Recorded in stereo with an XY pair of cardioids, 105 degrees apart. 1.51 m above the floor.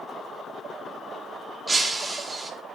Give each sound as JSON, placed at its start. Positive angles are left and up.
{"t": 1.7, "sound": "breaking glass", "azimuth_deg": -25, "distance_m": 3.0}